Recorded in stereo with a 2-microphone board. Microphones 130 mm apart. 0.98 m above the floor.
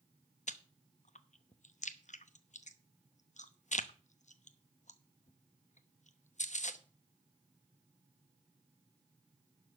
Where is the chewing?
65° left (ahead or behind), 0.8 m.